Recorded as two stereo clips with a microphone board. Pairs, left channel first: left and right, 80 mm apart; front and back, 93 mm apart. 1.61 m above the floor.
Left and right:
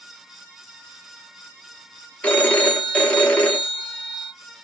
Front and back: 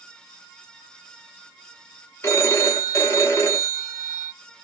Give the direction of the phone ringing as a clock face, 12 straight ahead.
11 o'clock.